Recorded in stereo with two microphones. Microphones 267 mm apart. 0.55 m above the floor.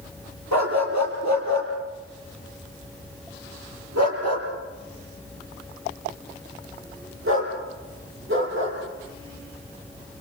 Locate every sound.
0.5 s a dog barking: 85° right, 6.5 m; by 8.8 s 45° right (ahead or behind), 7.5 m